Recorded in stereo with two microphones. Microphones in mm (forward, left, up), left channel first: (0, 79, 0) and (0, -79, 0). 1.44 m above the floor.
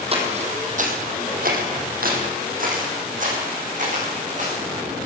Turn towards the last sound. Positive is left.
turn(degrees=-50)  # may be behind; listen again after turning